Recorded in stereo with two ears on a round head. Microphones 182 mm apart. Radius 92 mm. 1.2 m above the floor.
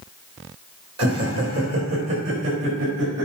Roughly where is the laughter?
Right.